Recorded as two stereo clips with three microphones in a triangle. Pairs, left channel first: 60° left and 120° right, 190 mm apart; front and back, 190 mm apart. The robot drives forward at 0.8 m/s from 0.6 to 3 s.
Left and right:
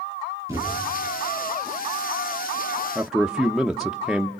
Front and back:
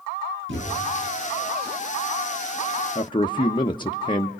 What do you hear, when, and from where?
0.5 s a thud: 165° left, 6.5 m
3.0 s a man speaking: 30° right, 0.8 m